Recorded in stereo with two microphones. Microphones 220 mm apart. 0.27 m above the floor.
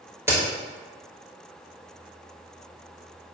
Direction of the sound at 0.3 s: 10° right (ahead or behind).